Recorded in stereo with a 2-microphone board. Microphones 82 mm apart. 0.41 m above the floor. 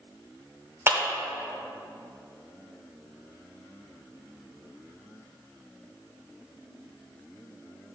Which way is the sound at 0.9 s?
30° right (ahead or behind).